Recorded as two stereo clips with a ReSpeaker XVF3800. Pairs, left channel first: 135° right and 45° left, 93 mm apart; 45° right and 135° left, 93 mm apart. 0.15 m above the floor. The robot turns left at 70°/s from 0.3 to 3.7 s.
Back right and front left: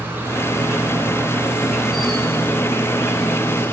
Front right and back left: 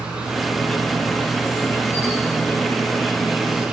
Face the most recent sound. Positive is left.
turn(degrees=-170)